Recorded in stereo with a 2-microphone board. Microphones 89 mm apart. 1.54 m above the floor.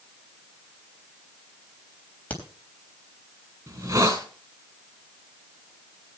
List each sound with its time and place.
2.3 s a crack: 15° left (ahead or behind), 3.5 m
3.7 s a hiss: 35° right (ahead or behind), 2.5 m